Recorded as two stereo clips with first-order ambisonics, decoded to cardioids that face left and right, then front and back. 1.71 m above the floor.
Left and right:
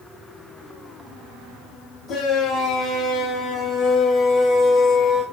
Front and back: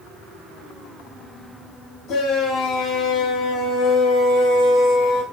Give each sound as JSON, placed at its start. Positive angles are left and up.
{"t": 2.1, "sound": "a shout", "azimuth_deg": 40, "distance_m": 3.5}